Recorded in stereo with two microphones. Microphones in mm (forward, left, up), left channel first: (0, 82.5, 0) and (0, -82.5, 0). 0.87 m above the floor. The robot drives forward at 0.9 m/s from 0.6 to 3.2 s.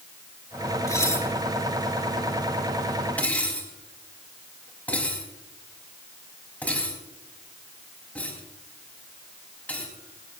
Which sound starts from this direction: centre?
Dishes clattering, at 0.9 s.